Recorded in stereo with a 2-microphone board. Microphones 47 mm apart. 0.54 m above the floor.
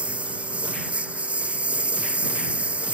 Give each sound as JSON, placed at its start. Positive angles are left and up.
{"t": 0.0, "sound": "a lawn mower", "side_deg": -25}